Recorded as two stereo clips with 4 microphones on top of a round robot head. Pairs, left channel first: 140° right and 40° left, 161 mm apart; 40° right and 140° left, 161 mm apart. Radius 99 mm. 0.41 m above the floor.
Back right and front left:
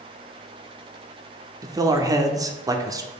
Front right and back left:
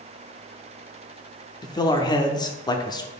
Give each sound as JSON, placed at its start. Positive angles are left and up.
{"t": 1.6, "sound": "a man speaking", "azimuth_deg": -5, "distance_m": 0.9}